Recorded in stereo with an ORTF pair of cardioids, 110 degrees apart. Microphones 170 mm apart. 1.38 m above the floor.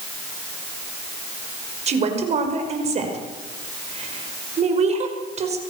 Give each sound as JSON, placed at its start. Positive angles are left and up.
{"t": 1.9, "sound": "a woman speaking", "azimuth_deg": -40, "distance_m": 5.5}